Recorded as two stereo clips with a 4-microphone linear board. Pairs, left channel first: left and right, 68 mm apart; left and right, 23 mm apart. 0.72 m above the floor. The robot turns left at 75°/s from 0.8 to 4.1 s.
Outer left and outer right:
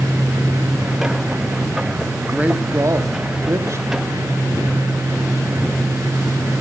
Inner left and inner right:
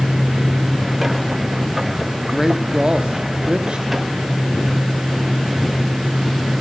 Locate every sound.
2.1 s a man speaking: 5° right, 1.3 m; by 3.9 s 130° right, 1.3 m